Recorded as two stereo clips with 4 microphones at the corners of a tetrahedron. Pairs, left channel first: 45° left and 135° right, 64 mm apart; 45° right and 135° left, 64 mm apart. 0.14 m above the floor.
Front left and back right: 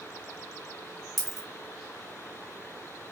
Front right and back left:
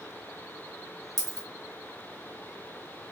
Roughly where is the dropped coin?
Behind left.